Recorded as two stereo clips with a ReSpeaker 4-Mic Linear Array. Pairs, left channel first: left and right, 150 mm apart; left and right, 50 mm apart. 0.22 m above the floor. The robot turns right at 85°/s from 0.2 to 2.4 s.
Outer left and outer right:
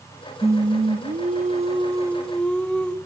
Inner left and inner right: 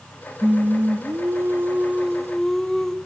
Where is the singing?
160° right, 1.0 m; by 3.0 s 10° left, 1.0 m.